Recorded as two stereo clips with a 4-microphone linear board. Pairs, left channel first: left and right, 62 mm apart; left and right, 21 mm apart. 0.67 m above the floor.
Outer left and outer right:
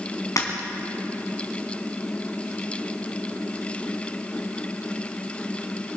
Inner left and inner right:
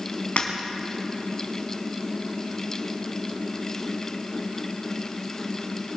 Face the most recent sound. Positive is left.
turn(degrees=70)  # may be behind; listen again after turning